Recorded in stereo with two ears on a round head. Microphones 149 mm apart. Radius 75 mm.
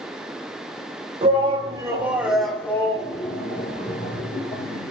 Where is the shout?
35° right (ahead or behind), 1.6 m; by 4.9 s 60° left (ahead or behind), 2 m.